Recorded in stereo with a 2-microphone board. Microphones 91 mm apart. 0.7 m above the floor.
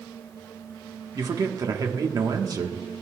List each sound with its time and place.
1.1 s a man speaking: 45° right (ahead or behind), 1.2 m